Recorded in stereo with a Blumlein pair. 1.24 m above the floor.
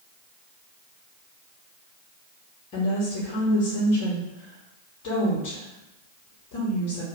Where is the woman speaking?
40° left, 0.9 m.